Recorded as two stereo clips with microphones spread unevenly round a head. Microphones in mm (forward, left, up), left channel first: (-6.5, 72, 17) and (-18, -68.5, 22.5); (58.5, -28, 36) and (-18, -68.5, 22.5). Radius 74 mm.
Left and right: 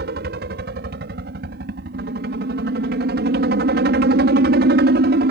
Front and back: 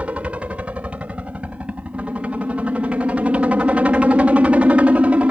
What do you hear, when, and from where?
0.0 s a helicopter: 80° right